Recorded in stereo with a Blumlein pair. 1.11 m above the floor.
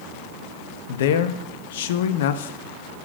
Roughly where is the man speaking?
Ahead left.